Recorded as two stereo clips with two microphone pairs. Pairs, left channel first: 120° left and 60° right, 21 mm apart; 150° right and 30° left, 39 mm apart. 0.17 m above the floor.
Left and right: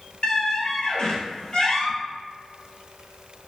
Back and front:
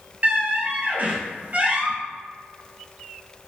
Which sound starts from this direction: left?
A squeak, at 0.2 s.